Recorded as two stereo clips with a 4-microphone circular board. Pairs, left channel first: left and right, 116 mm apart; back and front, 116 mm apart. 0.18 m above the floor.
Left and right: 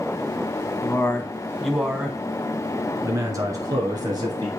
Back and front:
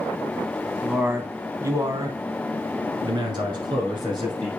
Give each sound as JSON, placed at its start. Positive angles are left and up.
{"t": 0.8, "sound": "a man speaking", "azimuth_deg": 70, "distance_m": 1.0}